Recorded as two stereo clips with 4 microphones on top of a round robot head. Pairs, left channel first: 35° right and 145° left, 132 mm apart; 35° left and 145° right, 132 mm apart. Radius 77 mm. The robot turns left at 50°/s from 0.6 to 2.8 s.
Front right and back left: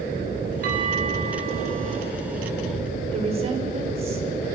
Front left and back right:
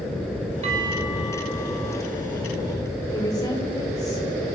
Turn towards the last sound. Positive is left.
turn(degrees=100)